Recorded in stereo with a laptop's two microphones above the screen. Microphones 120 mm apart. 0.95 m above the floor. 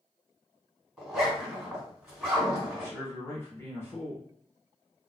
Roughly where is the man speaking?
Centre.